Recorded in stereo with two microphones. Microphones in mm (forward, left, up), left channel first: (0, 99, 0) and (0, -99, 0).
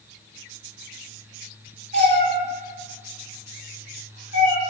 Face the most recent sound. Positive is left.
turn(degrees=-60)  # may be behind; listen again after turning